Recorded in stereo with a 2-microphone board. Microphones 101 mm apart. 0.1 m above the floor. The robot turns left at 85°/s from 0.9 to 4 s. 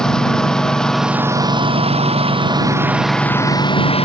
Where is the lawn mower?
5° left; by 4.0 s 105° left.